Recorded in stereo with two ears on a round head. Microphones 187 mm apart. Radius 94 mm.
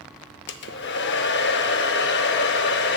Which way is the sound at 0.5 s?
55° left (ahead or behind).